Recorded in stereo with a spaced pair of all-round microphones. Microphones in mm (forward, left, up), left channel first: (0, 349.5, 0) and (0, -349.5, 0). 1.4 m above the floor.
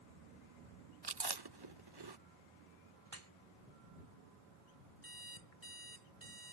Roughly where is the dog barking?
I don't hear a dog barking.